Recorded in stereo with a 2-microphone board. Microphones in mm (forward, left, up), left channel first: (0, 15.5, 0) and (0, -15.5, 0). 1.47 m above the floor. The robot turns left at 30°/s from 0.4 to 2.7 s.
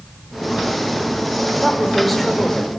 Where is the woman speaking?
160° right, 4.5 m; by 2.7 s 165° left, 4.5 m.